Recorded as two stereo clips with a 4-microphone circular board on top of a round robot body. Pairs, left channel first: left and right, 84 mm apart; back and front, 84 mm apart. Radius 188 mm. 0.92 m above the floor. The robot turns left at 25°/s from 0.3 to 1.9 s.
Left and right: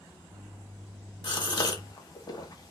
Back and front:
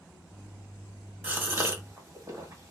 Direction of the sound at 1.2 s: 70° left.